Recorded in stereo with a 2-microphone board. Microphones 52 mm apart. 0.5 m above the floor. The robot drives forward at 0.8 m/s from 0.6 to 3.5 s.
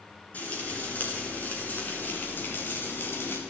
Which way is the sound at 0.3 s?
35° left (ahead or behind).